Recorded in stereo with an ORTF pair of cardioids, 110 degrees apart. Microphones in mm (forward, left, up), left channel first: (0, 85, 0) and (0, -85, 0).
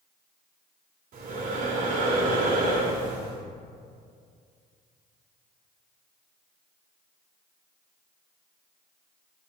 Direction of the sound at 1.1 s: 55° right.